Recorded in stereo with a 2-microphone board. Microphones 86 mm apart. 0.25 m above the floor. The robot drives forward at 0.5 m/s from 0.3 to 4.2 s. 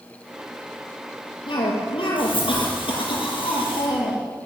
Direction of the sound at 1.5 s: 75° left (ahead or behind).